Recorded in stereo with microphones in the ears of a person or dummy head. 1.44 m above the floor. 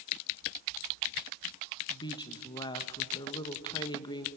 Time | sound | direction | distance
1.9 | a woman speaking | 30° left (ahead or behind) | 1.3 m